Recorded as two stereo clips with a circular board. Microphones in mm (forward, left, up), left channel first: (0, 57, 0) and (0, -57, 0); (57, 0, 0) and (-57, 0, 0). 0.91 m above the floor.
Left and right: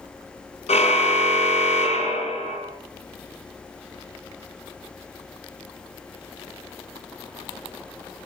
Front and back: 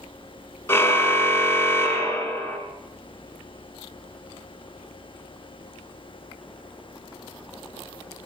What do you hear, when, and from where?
0.7 s a car horn: 70° left, 4 m